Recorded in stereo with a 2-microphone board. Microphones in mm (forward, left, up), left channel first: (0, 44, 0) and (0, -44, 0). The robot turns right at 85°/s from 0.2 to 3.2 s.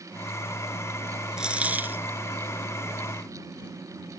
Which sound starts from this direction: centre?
A dropped coin, at 1.4 s.